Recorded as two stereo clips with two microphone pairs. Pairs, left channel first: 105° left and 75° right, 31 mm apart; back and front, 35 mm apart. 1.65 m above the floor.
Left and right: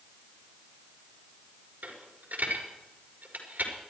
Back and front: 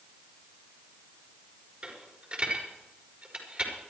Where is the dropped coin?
55° right, 5 m.